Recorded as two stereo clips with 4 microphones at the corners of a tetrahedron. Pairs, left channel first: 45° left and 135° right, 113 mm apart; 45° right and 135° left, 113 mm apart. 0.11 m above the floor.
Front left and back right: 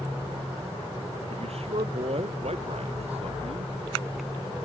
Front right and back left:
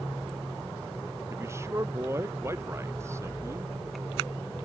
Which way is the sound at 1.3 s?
160° right.